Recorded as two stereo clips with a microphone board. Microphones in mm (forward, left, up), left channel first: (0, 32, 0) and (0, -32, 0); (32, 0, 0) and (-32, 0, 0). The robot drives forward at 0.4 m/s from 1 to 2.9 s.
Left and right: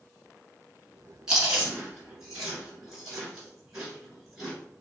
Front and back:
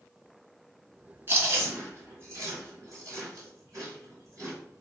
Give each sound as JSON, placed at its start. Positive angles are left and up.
{"t": 1.3, "sound": "chewing", "azimuth_deg": -165, "distance_m": 2.0}